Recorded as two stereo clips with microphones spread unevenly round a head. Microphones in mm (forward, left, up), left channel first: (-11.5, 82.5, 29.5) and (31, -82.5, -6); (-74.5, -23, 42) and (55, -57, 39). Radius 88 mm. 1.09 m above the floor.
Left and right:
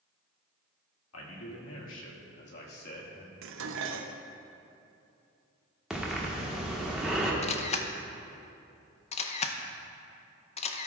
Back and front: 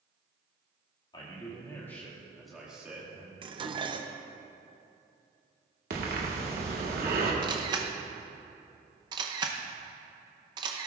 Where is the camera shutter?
45° left, 0.7 m.